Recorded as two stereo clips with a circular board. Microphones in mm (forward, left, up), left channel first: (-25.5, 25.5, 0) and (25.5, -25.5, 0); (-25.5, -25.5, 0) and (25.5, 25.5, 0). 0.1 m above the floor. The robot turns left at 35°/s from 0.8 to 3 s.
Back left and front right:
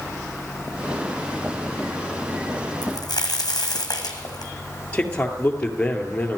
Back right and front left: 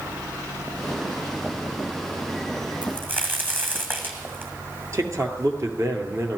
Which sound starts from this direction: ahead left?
A man speaking, at 4.9 s.